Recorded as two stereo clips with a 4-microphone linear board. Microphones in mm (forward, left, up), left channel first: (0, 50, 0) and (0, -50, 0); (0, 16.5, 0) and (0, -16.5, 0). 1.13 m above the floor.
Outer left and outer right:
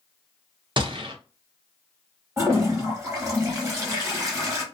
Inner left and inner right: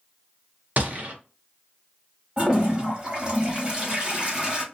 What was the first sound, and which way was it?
A gunshot, 55° right (ahead or behind).